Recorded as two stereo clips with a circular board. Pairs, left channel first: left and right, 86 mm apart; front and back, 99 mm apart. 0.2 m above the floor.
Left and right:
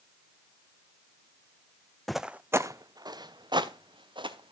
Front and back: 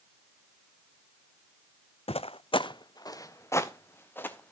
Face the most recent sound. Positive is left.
turn(degrees=-70)